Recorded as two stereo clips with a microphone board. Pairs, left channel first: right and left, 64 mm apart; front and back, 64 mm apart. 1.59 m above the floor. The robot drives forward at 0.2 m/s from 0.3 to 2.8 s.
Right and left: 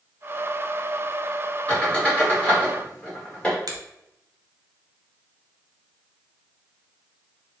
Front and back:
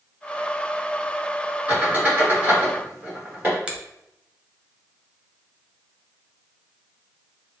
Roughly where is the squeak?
Behind right.